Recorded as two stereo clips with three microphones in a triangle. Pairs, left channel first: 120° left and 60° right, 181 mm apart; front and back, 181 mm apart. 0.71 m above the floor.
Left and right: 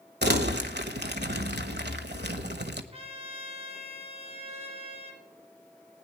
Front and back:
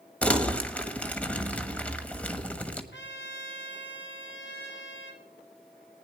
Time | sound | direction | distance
0.2 | crumpling | 80° right | 1.2 m
2.9 | a trumpet | 5° right | 3 m